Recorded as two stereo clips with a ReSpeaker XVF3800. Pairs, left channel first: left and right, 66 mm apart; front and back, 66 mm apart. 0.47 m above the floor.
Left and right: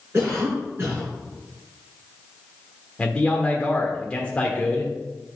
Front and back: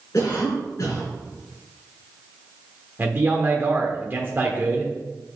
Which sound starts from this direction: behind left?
A man speaking, at 3.0 s.